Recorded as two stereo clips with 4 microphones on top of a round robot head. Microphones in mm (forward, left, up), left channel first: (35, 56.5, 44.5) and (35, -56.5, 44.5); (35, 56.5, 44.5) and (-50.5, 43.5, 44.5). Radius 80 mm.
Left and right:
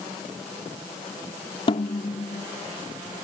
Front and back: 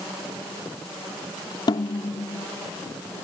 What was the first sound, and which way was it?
A snare drum, 45° left.